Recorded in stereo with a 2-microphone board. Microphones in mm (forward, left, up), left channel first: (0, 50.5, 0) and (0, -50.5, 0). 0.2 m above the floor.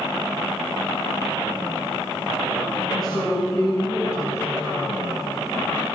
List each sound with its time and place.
2.9 s a woman speaking: 45° left (ahead or behind), 5.5 m; by 5.0 s 35° left (ahead or behind), 4 m